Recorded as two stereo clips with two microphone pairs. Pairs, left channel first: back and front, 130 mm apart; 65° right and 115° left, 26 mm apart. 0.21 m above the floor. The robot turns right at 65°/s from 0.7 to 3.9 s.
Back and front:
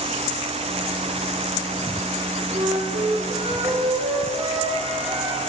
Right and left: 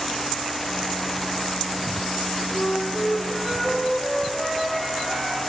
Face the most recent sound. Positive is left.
turn(degrees=90)